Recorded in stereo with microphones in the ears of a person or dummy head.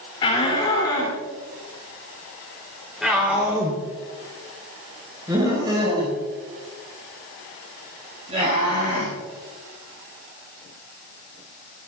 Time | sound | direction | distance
0.2 | a shout | 30° left (ahead or behind) | 3 m